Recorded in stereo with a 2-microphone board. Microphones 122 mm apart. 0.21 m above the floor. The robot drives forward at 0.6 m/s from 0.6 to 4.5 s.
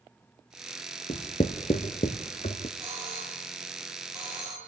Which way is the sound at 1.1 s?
65° left (ahead or behind).